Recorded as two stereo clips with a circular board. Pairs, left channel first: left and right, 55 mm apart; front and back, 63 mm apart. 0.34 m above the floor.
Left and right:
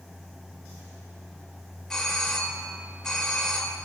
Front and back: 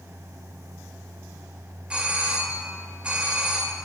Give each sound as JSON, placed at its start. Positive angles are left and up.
{"t": 1.9, "sound": "a doorbell", "azimuth_deg": 145, "distance_m": 1.3}